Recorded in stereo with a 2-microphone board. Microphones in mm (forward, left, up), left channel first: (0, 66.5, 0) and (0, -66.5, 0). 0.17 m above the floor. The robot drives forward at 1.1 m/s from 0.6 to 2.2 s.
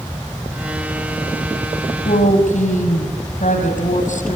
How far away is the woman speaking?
About 5 m.